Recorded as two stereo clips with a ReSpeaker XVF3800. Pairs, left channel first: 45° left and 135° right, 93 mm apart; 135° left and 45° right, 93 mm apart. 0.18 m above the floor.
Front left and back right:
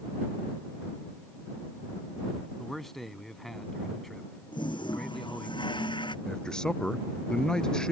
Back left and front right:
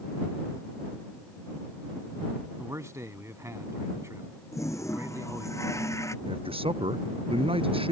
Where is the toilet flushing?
75° left.